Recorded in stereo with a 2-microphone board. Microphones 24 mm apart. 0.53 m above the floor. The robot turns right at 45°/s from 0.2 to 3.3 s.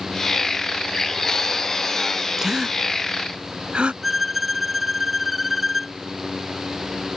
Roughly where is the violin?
Centre.